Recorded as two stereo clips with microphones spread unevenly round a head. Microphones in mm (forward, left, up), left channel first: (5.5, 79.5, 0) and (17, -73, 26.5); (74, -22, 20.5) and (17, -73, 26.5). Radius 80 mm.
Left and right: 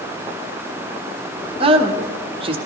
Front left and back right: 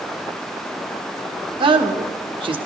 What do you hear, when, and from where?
1.6 s a man speaking: 145° right, 1.2 m